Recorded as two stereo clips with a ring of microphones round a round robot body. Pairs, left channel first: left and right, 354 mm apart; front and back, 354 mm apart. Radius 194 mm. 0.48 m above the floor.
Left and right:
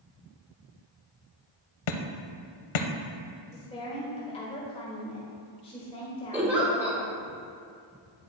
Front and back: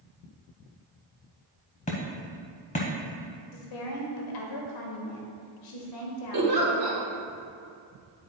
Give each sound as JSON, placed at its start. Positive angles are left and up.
{"t": 1.9, "sound": "hammering", "azimuth_deg": 75, "distance_m": 0.7}
{"t": 3.5, "sound": "a woman speaking", "azimuth_deg": 15, "distance_m": 1.6}
{"t": 6.3, "sound": "a giggle", "azimuth_deg": -175, "distance_m": 2.5}